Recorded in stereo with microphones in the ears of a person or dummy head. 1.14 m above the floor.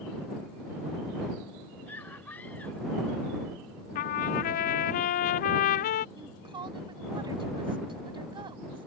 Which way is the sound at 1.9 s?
5° left (ahead or behind).